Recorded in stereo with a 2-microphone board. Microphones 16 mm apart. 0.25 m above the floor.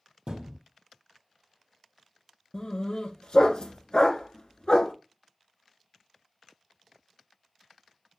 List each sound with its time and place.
0.3 s a thud: 70° right (ahead or behind), 3.5 m
2.5 s a dog barking: 65° left (ahead or behind), 1.2 m